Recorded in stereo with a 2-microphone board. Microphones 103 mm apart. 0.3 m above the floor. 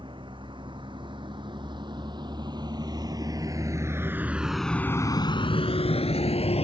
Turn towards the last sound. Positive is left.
turn(degrees=80)